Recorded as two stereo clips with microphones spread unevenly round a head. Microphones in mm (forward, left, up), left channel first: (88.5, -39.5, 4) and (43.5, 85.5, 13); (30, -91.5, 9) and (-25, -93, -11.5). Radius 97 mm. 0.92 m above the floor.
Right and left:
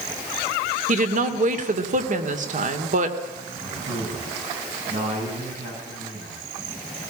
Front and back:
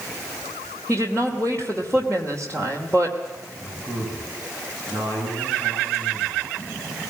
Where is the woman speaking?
85° left, 2.5 m.